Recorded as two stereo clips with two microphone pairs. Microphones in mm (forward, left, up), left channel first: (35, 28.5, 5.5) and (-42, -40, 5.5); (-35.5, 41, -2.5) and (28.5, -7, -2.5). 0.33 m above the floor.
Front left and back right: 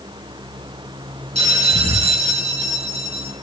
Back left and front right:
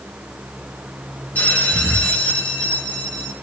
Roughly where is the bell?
Behind right.